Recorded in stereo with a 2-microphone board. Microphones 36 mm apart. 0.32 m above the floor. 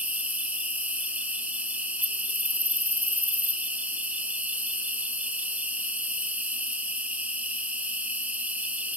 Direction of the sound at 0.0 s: 40° right (ahead or behind).